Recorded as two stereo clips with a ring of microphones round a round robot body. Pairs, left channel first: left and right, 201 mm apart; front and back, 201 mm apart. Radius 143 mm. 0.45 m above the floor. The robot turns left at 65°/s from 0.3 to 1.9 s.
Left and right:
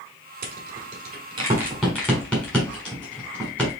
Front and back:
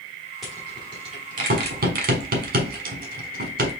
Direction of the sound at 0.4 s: 90° right.